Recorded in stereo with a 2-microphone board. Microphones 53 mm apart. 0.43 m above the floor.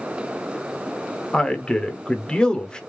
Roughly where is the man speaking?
Centre.